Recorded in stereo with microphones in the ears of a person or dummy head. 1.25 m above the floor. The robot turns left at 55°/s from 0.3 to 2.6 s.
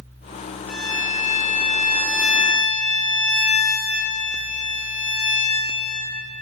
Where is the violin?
110° left, 4 m; by 6.1 s 5° left, 4 m.